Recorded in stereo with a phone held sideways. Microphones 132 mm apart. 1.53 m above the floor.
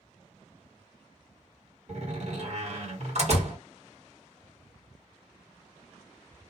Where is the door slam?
60° right (ahead or behind), 1.7 m.